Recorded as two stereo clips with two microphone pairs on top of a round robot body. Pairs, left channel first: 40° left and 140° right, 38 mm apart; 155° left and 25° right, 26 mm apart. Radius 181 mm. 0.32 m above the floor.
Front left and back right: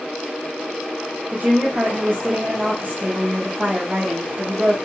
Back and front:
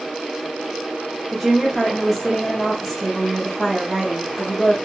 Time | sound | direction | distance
1.3 | a woman speaking | 120° right | 1.5 m